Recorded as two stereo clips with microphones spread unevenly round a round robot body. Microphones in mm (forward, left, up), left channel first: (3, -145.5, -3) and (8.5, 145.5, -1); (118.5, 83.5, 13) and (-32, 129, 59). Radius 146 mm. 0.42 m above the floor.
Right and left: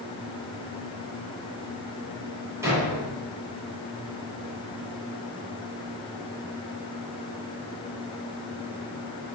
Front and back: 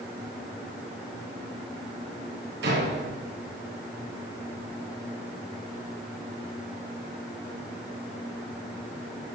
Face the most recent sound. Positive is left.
turn(degrees=170)